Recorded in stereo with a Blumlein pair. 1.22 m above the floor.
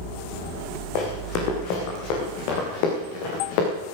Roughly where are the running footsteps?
Ahead left.